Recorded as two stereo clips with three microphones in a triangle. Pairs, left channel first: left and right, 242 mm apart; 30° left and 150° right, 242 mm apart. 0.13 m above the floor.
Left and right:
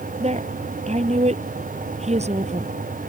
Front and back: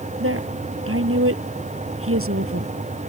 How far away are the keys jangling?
No keys jangling in this recording.